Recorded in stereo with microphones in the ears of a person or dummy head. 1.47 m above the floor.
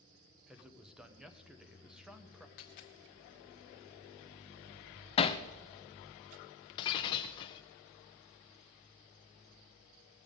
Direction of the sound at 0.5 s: Centre (ahead or behind).